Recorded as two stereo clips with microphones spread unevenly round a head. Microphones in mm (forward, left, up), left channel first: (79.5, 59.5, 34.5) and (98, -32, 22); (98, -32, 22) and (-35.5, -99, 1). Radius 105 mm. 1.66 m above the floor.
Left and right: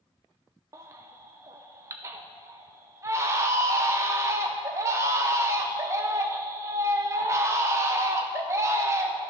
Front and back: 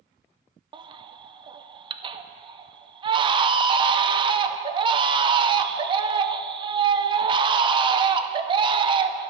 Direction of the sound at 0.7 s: 125° right.